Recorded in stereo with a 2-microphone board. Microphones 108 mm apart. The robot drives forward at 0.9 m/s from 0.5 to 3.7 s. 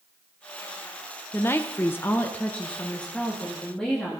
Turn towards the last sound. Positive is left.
turn(degrees=5)  # may be behind; listen again after turning